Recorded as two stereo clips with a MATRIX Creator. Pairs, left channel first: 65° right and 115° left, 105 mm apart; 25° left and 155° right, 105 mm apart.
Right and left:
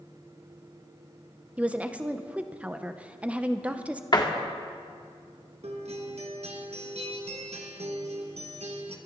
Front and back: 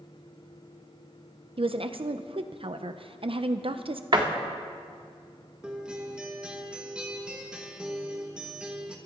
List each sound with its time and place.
1.6 s a woman speaking: 170° right, 0.7 m
4.1 s a door slam: 115° right, 1.7 m
5.6 s a guitar: 120° left, 1.6 m